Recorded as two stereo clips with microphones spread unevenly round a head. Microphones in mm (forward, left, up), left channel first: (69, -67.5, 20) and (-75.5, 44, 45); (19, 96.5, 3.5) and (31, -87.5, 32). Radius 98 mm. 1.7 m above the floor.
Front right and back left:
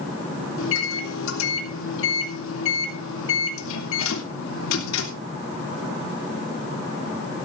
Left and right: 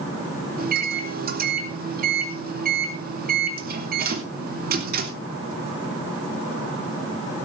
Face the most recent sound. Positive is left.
turn(degrees=-50)